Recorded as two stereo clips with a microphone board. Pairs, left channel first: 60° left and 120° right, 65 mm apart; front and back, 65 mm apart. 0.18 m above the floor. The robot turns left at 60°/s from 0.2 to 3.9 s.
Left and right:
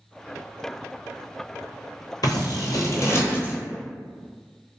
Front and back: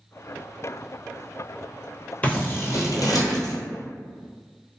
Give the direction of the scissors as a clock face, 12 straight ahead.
10 o'clock.